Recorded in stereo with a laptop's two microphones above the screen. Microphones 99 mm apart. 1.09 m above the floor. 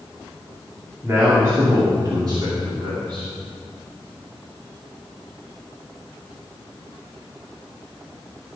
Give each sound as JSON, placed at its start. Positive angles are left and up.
{"t": 1.0, "sound": "a man speaking", "side_deg": -25, "distance_m": 2.0}